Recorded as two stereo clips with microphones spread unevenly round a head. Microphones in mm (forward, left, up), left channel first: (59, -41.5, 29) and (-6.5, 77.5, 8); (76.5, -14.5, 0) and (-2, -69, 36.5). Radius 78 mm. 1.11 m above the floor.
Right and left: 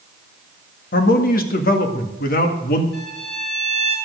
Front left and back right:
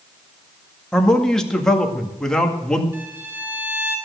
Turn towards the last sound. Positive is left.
turn(degrees=-80)